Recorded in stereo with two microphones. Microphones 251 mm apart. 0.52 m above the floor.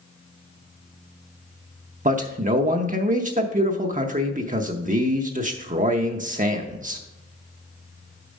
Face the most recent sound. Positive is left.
turn(degrees=-30)  # may be behind; listen again after turning